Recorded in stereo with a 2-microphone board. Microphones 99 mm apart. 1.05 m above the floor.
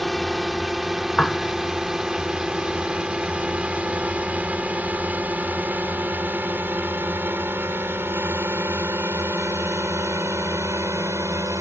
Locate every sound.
0.0 s a drone: centre (ahead or behind); by 11.6 s 30° right (ahead or behind)
1.2 s a piano: 10° left (ahead or behind)